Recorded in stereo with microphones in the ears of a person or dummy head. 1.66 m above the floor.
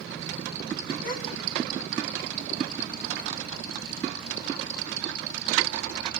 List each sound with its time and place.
1.0 s a gasp: 70° left (ahead or behind), 5 m